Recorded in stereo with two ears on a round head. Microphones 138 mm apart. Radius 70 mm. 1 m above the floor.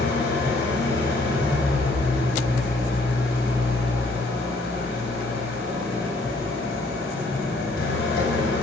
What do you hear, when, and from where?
0.0 s an engine running: 85° left, 5.5 m